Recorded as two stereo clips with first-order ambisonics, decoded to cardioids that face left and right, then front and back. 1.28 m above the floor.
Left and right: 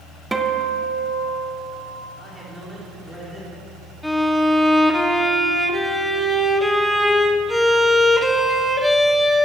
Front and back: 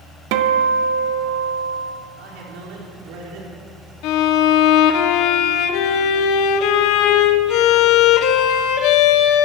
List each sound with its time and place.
0.3 s a guitar: 170° right, 0.9 m
2.2 s a man speaking: 170° right, 4 m
4.0 s a violin: 5° left, 0.7 m